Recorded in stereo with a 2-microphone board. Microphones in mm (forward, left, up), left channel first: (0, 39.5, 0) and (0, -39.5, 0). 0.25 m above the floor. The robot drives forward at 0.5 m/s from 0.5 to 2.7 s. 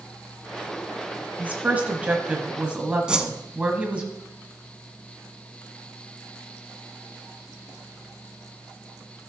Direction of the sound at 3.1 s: 10° right (ahead or behind).